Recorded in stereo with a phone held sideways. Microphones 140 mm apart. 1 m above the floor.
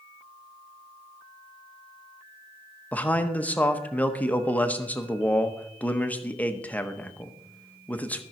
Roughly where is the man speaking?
Centre.